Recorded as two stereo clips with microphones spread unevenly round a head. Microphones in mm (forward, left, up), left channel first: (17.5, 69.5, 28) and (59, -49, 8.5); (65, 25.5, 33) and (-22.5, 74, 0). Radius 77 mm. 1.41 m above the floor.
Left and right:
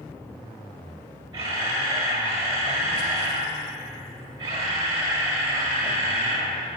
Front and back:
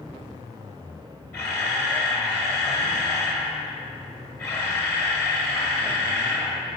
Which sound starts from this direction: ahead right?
A camera shutter, at 1.3 s.